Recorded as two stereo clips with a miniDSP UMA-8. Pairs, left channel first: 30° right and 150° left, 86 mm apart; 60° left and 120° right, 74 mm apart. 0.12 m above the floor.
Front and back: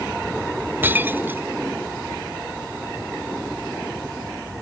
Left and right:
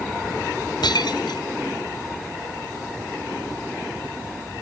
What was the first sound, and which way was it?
Breaking glass, 85° left.